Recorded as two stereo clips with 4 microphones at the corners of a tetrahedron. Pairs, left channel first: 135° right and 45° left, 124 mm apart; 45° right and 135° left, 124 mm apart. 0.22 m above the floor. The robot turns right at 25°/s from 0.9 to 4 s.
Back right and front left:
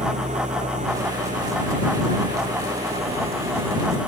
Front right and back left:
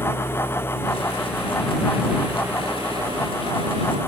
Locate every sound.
0.0 s an engine running: 25° left; by 4.1 s 100° left